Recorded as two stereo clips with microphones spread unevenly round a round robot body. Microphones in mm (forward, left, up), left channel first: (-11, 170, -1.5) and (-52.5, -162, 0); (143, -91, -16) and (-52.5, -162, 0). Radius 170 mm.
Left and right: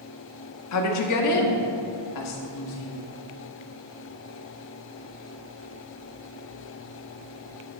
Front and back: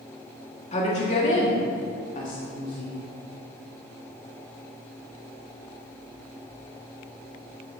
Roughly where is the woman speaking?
Left.